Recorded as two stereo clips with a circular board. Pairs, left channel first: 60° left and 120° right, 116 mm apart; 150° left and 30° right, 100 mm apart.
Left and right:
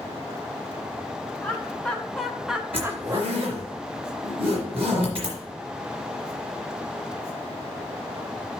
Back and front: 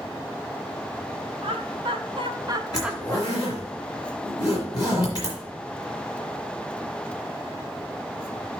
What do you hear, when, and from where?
1.4 s laughter: 15° right, 2.5 m; by 3.5 s 170° right, 1.3 m
2.7 s a zipper: 160° right, 3.5 m